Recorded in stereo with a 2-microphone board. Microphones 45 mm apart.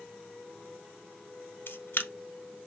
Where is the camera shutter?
55° left (ahead or behind), 0.6 m.